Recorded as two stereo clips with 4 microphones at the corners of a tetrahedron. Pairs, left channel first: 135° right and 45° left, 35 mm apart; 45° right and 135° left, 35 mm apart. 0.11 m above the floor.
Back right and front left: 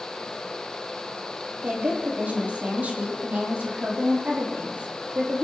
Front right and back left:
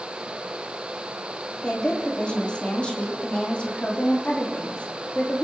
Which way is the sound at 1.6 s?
15° left.